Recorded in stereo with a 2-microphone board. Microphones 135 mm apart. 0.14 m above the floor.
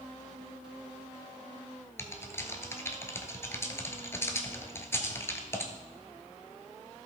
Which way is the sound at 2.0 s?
20° left (ahead or behind).